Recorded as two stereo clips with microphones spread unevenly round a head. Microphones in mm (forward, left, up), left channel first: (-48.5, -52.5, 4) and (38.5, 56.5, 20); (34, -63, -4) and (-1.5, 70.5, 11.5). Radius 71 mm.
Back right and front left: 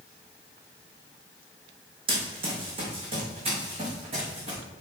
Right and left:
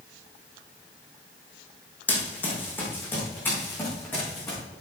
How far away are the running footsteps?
About 3 m.